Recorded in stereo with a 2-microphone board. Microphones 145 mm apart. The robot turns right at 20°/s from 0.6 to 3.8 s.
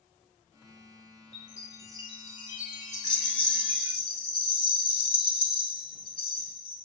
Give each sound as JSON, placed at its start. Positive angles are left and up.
{"t": 1.3, "sound": "a chime", "azimuth_deg": 15, "distance_m": 1.3}
{"t": 2.9, "sound": "a rattle", "side_deg": -55, "distance_m": 1.3}